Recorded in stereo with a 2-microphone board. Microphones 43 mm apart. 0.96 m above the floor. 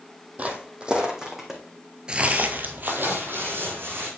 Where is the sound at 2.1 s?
20° right (ahead or behind), 1.0 m; by 4.1 s 60° right (ahead or behind), 3 m.